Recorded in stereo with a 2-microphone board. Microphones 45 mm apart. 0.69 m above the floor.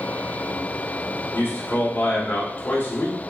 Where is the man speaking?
45° left (ahead or behind), 2.5 m.